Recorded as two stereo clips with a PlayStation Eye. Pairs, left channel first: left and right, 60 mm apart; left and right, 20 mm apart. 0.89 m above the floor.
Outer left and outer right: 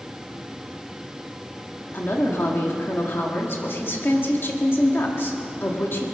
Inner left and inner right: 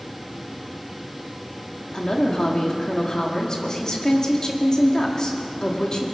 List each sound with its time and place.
1.9 s a woman speaking: 40° left (ahead or behind), 1.9 m